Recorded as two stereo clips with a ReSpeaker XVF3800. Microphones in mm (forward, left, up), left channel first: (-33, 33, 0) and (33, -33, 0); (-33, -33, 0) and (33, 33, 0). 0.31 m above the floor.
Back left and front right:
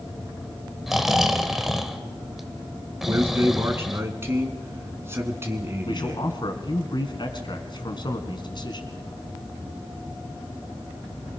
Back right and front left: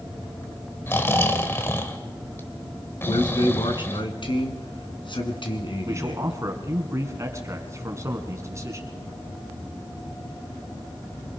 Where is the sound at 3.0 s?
110° right, 3 m.